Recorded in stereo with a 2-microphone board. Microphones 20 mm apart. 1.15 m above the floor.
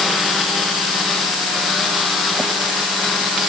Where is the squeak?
No squeak in this recording.